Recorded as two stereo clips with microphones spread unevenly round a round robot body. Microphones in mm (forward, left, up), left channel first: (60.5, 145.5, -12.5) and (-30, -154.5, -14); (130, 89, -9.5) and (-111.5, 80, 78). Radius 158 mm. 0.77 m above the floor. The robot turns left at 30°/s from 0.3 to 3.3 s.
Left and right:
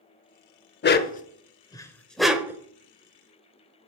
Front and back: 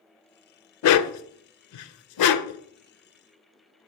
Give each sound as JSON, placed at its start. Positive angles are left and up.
{"t": 0.8, "sound": "a dog barking", "azimuth_deg": 25, "distance_m": 0.6}